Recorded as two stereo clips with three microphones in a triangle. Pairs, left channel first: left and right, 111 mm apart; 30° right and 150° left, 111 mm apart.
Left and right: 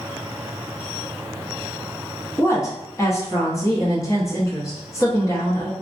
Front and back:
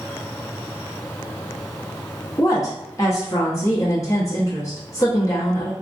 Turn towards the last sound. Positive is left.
turn(degrees=25)